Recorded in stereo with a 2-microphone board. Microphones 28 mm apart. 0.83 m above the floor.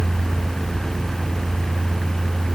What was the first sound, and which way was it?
Only background noise.